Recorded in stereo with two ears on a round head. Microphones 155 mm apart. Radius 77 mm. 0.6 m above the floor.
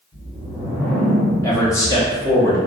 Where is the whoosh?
10° left (ahead or behind), 1.8 m.